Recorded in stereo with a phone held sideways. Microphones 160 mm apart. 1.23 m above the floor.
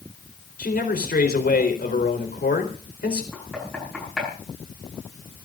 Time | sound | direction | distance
0.6 | a man speaking | 75° left (ahead or behind) | 4 m
3.3 | knocking | centre (ahead or behind) | 9 m